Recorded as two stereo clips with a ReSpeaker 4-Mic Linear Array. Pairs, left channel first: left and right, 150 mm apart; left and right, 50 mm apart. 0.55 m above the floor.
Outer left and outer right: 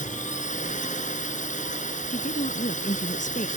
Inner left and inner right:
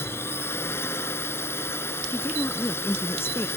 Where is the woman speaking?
55° left (ahead or behind).